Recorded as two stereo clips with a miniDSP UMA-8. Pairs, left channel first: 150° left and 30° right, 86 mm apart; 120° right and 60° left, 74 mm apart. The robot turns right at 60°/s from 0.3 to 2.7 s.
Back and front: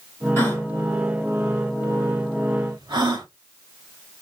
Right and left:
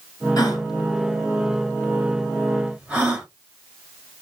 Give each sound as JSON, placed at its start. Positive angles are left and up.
{"t": 0.4, "sound": "a gasp", "azimuth_deg": -150, "distance_m": 2.0}